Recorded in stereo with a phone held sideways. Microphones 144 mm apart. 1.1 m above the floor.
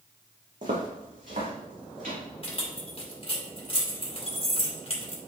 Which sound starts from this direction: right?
Footsteps, at 0.6 s.